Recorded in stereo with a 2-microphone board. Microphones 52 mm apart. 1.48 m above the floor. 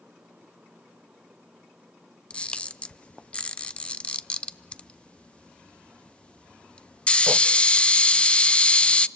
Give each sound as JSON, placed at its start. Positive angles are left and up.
{"t": 2.3, "sound": "a camera shutter", "side_deg": 20, "distance_m": 0.5}